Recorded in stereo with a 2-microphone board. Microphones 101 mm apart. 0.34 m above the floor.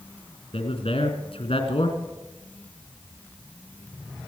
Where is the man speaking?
65° left (ahead or behind), 3 m.